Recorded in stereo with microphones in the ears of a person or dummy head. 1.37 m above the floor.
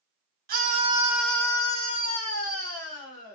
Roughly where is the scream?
Right.